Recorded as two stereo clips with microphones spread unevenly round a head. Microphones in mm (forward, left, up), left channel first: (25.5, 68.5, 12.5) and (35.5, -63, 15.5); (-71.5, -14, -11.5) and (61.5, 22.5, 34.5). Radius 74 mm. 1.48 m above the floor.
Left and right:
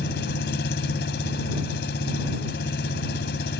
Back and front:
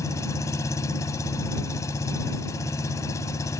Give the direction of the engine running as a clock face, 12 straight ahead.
8 o'clock.